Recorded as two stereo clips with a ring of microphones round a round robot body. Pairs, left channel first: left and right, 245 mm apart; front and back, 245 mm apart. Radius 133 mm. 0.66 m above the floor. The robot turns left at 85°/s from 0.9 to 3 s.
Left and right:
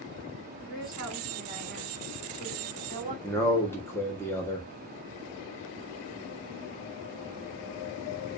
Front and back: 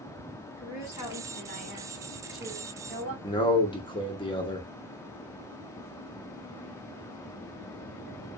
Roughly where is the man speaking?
Ahead left.